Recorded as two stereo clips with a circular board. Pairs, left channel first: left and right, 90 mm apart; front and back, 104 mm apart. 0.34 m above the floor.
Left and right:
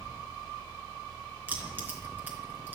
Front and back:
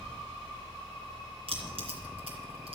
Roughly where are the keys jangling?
Behind.